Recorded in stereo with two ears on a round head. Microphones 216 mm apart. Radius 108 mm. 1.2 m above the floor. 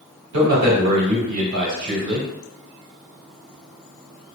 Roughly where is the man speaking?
Right.